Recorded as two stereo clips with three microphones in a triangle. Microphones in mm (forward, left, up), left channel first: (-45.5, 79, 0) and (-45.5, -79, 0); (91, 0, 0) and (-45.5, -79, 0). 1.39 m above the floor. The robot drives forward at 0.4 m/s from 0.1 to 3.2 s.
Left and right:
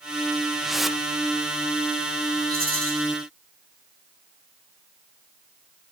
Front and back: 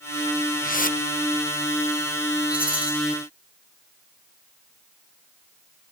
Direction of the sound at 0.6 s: Straight ahead.